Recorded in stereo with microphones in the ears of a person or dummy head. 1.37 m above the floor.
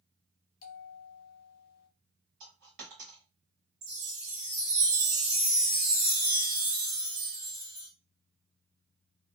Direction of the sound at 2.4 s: 50° right (ahead or behind).